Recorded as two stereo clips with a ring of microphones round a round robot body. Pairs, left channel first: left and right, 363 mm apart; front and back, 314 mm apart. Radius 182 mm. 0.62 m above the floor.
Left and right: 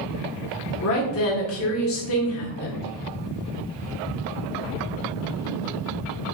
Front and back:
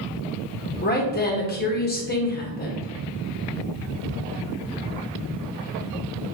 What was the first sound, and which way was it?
A woman speaking, 50° left.